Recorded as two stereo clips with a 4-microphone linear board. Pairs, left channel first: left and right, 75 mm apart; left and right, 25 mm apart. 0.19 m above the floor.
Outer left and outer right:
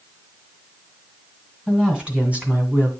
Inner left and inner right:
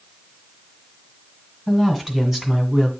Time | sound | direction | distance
1.7 | a woman speaking | 10° right (ahead or behind) | 2 m